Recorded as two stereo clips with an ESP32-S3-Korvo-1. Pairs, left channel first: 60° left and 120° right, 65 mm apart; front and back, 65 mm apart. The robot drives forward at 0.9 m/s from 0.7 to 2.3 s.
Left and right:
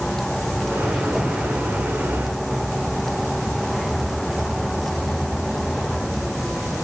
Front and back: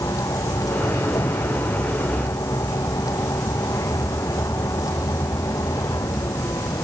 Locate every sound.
0.0 s a vehicle: 25° right; by 6.8 s 30° right